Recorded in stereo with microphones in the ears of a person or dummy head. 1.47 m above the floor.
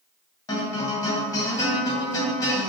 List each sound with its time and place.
0.5 s a guitar: 20° left (ahead or behind), 0.9 m